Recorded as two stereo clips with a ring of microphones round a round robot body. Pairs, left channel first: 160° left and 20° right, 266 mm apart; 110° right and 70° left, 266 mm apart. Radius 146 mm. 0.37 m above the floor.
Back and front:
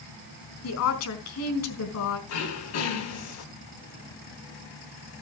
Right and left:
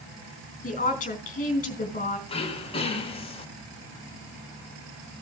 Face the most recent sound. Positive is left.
turn(degrees=180)